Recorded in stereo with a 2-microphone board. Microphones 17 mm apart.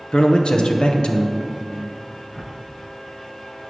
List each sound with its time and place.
0.1 s a man speaking: 75° left (ahead or behind), 0.9 m
2.3 s a whoosh: 20° left (ahead or behind), 0.6 m